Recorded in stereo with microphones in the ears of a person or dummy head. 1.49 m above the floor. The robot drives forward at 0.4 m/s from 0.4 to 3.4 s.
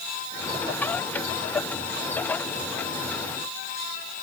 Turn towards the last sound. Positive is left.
No sound to turn to.